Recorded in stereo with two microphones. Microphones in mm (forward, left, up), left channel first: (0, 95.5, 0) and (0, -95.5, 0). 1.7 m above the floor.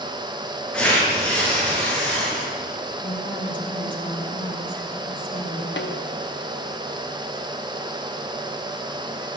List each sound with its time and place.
0.7 s tearing paper: 5° left (ahead or behind), 7 m
3.0 s a woman speaking: 45° left (ahead or behind), 3.5 m
5.8 s a snare drum: 75° left (ahead or behind), 1.2 m